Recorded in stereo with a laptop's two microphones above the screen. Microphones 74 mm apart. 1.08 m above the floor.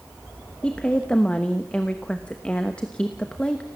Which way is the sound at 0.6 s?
15° left (ahead or behind).